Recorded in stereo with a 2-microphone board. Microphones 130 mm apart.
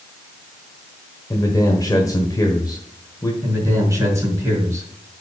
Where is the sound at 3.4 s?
25° right (ahead or behind), 5 m.